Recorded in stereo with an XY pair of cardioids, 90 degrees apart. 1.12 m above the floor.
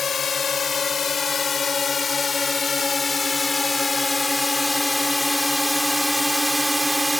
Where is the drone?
55° left; by 7.2 s 5° right.